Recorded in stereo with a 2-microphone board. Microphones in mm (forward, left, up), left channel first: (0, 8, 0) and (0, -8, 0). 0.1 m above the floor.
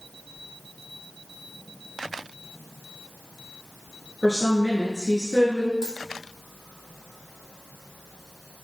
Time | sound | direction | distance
4.2 | a woman speaking | 20° right (ahead or behind) | 1.8 m
5.8 | a dropped coin | 30° right (ahead or behind) | 1.5 m